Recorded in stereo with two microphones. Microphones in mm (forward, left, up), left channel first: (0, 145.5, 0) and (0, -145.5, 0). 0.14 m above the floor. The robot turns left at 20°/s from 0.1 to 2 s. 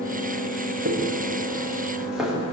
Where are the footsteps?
35° right (ahead or behind), 7.5 m; by 2.3 s centre (ahead or behind), 8 m.